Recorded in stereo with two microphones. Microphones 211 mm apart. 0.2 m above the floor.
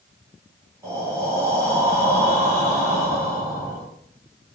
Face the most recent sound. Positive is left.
turn(degrees=-15)  # may be behind; listen again after turning